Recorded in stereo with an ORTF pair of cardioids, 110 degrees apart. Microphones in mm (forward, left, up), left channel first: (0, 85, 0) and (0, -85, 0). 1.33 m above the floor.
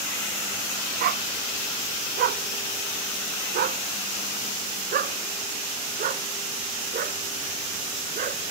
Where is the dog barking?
65° right; by 8.4 s 50° right.